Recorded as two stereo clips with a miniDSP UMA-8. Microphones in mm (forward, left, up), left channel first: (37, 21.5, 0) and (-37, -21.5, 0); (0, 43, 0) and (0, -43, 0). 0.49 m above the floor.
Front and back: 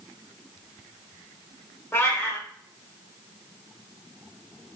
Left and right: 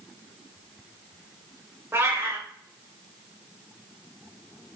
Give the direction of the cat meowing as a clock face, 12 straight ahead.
1 o'clock.